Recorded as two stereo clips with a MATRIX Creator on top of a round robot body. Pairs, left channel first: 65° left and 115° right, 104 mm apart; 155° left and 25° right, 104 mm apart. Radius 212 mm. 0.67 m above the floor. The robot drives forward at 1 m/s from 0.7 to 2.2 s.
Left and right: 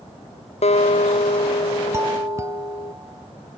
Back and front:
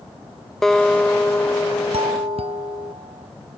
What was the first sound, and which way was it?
A guitar, 70° left.